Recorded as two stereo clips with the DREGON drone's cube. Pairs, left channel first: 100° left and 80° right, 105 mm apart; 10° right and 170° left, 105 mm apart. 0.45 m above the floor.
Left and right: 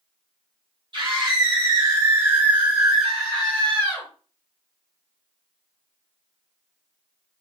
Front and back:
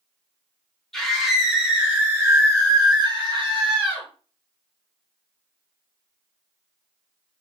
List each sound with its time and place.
0.9 s a scream: 95° right, 1.3 m; by 4.1 s 160° left, 1.3 m